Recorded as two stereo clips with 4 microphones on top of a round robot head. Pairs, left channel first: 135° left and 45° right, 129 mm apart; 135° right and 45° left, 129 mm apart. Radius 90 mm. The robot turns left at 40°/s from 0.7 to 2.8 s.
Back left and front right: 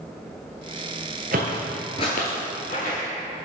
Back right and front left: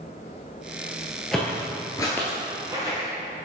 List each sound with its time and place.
1.3 s footsteps: 50° right, 1.0 m; by 3.1 s 110° left, 2 m